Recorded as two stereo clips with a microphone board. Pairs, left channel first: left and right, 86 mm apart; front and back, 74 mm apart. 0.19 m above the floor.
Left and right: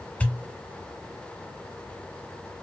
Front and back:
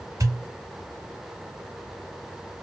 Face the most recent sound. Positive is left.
turn(degrees=160)